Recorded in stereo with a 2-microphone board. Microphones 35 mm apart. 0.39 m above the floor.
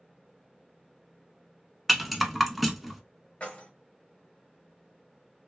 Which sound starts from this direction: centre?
A rattle, at 1.9 s.